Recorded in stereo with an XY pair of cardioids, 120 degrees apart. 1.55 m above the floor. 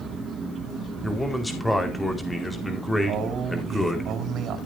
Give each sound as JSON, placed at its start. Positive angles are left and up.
{"t": 1.0, "sound": "a man speaking", "azimuth_deg": 5, "distance_m": 4.0}
{"t": 3.1, "sound": "a man speaking", "azimuth_deg": -60, "distance_m": 4.5}